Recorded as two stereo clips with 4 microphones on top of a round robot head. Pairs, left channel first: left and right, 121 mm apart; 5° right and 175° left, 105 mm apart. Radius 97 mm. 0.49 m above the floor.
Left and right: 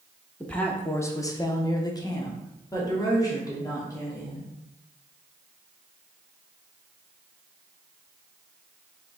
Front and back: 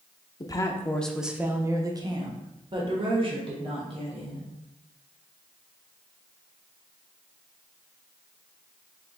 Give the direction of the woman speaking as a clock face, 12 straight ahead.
12 o'clock.